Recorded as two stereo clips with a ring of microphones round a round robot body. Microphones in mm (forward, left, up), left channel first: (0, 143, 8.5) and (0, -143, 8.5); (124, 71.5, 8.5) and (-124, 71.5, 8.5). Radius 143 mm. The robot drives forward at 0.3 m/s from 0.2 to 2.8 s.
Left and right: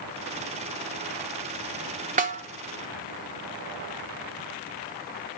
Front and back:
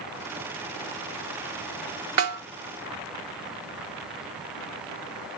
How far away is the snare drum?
About 0.9 m.